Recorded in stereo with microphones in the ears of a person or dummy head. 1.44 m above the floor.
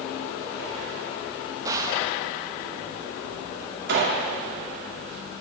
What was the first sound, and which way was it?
A gunshot, 20° right (ahead or behind).